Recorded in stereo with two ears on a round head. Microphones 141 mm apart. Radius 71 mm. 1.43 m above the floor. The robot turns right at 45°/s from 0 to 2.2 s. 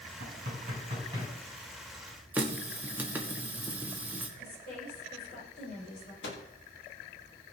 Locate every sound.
0.2 s knocking: 65° right (ahead or behind), 6.5 m; by 1.3 s 15° right (ahead or behind), 6.5 m
2.3 s a running tap: 10° right (ahead or behind), 1.3 m
4.4 s a woman speaking: 65° left (ahead or behind), 7.5 m
6.2 s a microwave: 85° left, 2.5 m